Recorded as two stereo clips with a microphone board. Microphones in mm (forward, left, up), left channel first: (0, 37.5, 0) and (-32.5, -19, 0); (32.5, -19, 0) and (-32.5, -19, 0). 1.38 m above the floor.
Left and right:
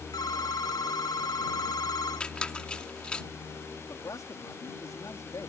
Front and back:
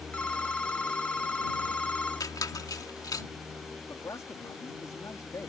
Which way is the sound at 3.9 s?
35° left.